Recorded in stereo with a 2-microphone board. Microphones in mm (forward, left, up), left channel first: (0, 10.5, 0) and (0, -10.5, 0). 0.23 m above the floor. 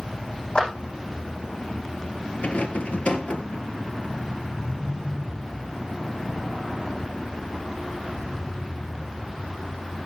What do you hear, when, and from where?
0.6 s a clap: 50° left (ahead or behind), 10 m
2.4 s a rattle: 70° left (ahead or behind), 1.3 m